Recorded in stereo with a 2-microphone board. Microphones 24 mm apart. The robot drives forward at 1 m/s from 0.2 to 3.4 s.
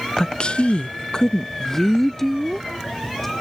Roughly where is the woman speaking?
Left.